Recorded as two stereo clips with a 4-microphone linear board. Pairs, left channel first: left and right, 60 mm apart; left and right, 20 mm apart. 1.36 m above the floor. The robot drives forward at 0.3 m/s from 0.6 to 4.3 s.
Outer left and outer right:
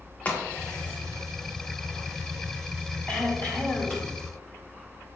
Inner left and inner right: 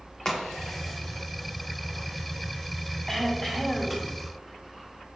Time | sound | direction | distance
0.2 | a crack | 30° left (ahead or behind) | 1.3 m
3.1 | throat clearing | 25° left (ahead or behind) | 1.9 m